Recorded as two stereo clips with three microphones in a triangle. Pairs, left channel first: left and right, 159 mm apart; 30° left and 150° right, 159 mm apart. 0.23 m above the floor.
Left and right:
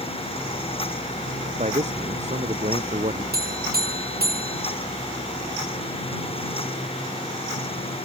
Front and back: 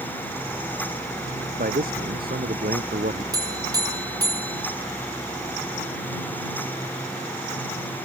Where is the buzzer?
85° right.